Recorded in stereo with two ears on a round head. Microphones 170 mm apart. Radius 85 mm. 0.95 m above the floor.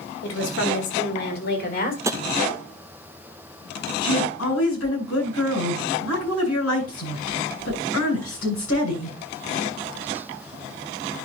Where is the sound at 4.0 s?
85° left, 8 m.